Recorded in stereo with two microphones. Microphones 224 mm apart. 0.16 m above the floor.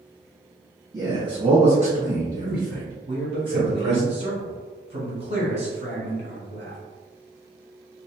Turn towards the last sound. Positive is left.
turn(degrees=-25)  # may be behind; listen again after turning